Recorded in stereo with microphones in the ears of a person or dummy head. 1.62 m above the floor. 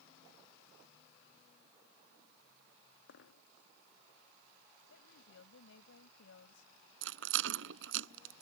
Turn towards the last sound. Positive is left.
turn(degrees=-75)  # may be behind; listen again after turning